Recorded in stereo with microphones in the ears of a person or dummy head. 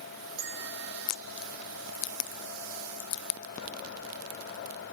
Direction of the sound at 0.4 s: 55° right (ahead or behind).